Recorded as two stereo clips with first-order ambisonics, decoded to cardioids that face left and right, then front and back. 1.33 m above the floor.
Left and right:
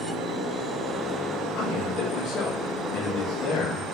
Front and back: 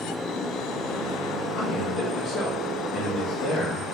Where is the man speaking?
45° left, 1.8 m.